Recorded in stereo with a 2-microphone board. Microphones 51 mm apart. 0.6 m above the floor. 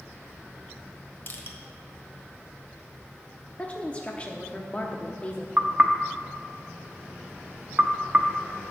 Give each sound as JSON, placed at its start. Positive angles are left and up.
{"t": 1.3, "sound": "crushing", "side_deg": 45, "distance_m": 1.3}
{"t": 3.6, "sound": "a woman speaking", "side_deg": 25, "distance_m": 0.7}
{"t": 5.6, "sound": "knocking", "side_deg": -30, "distance_m": 0.7}